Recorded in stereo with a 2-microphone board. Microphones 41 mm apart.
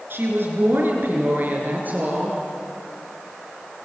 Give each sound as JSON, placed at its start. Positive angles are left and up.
{"t": 0.1, "sound": "a woman speaking", "side_deg": -60, "distance_m": 6.5}